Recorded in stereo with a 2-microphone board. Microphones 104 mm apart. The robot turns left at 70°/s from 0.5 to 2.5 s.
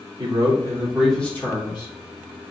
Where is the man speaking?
140° right, 1.5 m; by 1.9 s 120° left, 1.5 m.